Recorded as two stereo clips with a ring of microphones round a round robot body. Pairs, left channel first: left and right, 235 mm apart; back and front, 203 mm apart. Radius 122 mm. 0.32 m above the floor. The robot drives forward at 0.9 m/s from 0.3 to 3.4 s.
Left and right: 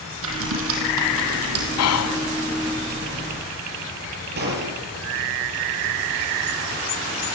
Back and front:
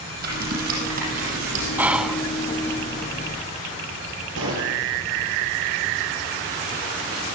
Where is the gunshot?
40° right, 7.5 m.